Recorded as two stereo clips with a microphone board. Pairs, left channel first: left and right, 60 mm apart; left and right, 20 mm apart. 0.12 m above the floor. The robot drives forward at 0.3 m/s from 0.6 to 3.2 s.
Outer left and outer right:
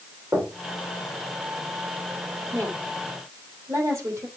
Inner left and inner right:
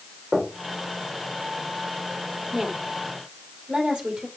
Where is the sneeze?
I don't hear a sneeze.